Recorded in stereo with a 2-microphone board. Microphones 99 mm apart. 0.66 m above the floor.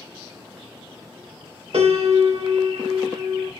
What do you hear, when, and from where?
1.7 s a piano: 75° right (ahead or behind), 1.2 m